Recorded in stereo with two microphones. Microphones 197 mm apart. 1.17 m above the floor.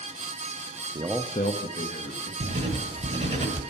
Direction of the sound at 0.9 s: 30° right (ahead or behind).